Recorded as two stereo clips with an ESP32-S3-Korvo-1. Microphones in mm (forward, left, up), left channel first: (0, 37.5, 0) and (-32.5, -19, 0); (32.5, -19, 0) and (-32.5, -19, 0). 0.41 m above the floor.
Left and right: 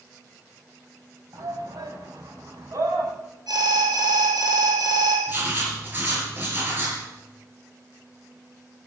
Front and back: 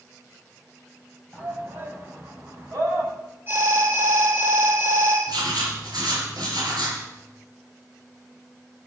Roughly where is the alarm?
Behind right.